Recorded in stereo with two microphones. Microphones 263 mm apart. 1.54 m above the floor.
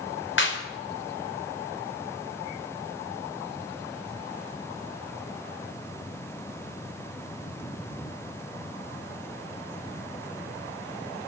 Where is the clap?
45° left (ahead or behind), 4.5 m.